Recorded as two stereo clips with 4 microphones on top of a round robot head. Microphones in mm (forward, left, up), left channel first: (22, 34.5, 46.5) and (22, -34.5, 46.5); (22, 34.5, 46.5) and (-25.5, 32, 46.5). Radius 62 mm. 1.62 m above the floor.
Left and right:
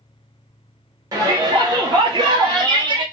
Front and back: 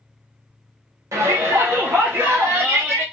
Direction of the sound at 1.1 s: 140° right.